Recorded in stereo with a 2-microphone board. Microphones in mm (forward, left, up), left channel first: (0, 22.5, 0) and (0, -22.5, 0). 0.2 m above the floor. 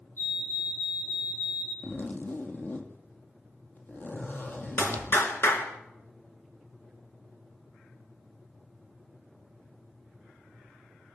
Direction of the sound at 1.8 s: 40° left (ahead or behind).